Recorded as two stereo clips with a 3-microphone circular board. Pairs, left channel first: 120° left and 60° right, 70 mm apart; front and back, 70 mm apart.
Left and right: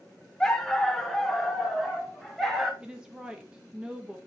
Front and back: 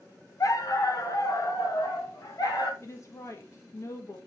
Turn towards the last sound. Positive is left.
turn(degrees=15)